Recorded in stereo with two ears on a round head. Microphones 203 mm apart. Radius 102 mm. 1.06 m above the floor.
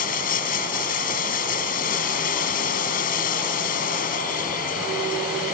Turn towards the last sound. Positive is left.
turn(degrees=40)  # may be behind; listen again after turning